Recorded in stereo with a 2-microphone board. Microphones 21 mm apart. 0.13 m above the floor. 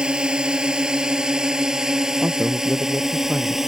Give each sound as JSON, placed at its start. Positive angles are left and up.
{"t": 0.0, "sound": "a drone", "side_deg": -45}
{"t": 2.2, "sound": "a man speaking", "side_deg": -65}